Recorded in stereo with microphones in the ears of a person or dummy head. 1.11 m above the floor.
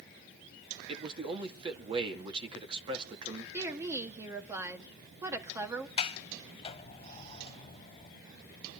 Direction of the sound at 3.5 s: 20° right (ahead or behind).